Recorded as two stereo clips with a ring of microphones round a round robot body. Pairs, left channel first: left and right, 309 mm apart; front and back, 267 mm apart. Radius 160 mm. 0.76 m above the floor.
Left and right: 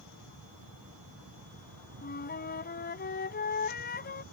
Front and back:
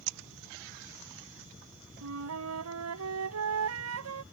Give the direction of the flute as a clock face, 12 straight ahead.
7 o'clock.